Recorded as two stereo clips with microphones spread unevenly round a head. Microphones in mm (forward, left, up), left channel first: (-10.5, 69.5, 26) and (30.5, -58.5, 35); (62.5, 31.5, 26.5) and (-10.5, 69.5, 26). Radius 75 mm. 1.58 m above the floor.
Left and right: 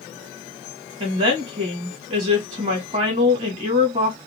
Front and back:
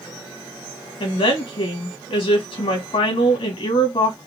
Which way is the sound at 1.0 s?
25° right.